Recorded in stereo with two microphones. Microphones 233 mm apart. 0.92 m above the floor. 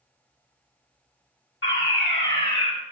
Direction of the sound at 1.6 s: 60° left (ahead or behind).